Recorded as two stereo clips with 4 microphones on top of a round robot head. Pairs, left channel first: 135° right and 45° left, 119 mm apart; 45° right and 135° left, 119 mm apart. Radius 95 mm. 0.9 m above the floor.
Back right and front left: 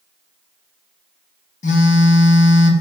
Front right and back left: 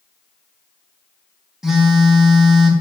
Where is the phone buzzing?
140° right, 0.6 m.